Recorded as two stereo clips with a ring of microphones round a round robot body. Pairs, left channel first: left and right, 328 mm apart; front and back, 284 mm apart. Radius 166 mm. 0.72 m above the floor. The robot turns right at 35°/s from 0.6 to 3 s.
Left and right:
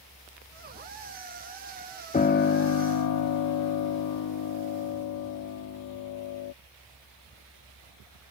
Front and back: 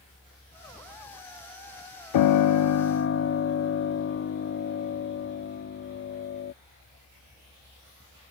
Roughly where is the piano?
Ahead.